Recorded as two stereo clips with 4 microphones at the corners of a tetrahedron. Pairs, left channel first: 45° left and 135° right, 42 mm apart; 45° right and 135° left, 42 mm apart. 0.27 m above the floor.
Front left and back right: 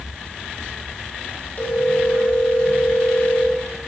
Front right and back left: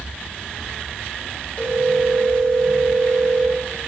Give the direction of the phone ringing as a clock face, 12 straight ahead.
12 o'clock.